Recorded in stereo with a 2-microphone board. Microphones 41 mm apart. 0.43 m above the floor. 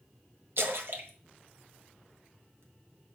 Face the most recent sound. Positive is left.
turn(degrees=-65)  # may be behind; listen again after turning